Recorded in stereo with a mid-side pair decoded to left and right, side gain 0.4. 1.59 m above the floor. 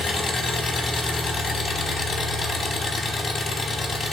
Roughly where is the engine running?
Ahead left.